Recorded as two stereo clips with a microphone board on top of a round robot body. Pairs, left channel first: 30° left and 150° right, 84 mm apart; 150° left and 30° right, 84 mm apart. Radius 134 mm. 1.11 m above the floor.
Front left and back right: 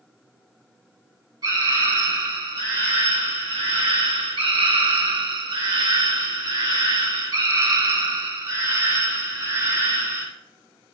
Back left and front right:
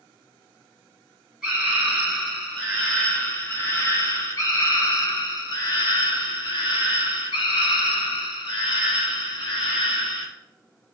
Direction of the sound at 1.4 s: 115° right.